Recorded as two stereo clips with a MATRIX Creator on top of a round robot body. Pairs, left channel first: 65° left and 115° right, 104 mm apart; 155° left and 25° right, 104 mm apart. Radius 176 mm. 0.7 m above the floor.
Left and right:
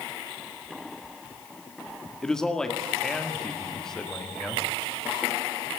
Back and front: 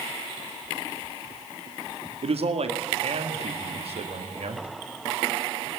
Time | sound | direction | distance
2.2 | a man speaking | 15° right | 2 m